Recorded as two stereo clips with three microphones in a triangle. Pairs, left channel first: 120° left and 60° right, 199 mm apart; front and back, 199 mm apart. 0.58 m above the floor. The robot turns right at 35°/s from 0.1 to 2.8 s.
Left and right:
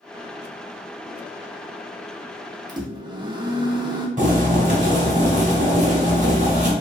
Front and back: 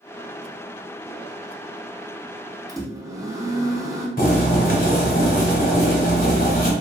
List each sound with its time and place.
2.7 s a microwave: 120° right, 0.5 m; by 4.1 s 115° right, 0.5 m
4.2 s boiling: 25° right, 0.9 m